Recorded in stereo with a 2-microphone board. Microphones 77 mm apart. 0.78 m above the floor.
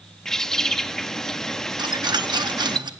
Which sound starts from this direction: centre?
A bird, at 0.2 s.